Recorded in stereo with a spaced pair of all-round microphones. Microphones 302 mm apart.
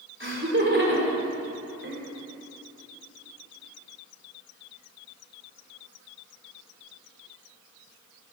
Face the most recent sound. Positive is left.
turn(degrees=-40)  # may be behind; listen again after turning